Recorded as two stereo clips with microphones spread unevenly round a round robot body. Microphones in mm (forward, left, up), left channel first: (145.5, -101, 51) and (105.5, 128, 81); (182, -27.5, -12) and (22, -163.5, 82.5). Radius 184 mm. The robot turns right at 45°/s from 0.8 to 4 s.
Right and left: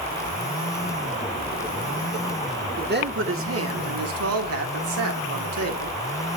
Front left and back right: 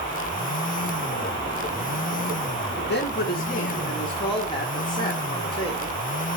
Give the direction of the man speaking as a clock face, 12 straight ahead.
10 o'clock.